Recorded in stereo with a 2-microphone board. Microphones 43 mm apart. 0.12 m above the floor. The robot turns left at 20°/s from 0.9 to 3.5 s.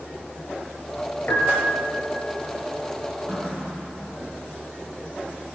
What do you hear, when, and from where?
1.3 s a piano: 55° left (ahead or behind), 1.5 m; by 2.1 s 50° left (ahead or behind), 1.5 m
3.3 s a running tap: 5° left (ahead or behind), 2 m; by 4.3 s 10° left (ahead or behind), 2 m